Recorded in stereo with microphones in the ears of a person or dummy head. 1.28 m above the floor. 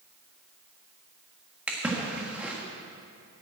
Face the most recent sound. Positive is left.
turn(degrees=-10)  # may be behind; listen again after turning